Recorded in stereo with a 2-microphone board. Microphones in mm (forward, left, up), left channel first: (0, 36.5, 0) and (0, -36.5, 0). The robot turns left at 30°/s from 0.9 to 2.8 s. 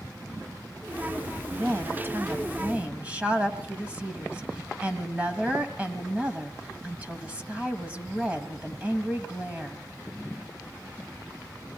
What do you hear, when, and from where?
1.5 s a woman speaking: 115° right, 1.7 m; by 9.8 s 150° right, 1.7 m